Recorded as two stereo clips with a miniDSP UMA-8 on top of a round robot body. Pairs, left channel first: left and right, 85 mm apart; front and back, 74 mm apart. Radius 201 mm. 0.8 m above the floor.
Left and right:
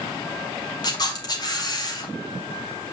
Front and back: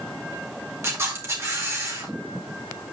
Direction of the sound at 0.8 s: 130° left.